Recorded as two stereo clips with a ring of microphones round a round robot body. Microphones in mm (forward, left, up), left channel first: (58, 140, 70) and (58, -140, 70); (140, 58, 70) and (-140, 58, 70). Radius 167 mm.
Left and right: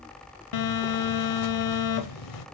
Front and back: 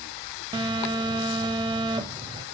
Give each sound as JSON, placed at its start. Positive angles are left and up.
{"t": 0.5, "sound": "a phone buzzing", "azimuth_deg": 105, "distance_m": 0.7}